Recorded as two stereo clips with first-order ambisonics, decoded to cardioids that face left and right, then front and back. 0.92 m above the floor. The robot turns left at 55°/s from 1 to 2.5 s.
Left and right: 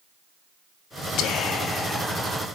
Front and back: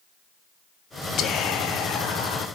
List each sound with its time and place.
1.2 s whispering: 55° left, 1.5 m; by 2.5 s 20° right, 1.5 m